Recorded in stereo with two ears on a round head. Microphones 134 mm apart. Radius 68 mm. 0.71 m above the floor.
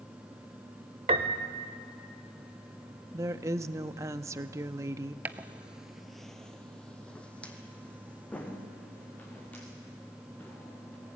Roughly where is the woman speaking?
Centre.